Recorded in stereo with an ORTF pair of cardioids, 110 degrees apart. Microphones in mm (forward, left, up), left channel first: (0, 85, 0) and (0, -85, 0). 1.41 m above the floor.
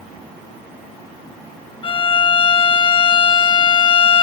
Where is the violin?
30° left, 1.0 m.